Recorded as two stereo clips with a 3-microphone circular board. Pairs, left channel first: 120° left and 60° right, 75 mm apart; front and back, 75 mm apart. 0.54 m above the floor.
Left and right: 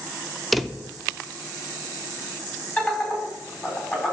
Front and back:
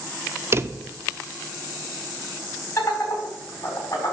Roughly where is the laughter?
Ahead left.